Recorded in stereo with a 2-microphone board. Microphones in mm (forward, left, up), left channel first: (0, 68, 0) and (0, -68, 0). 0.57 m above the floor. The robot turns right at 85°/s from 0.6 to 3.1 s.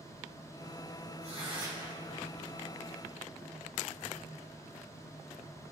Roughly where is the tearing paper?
Right.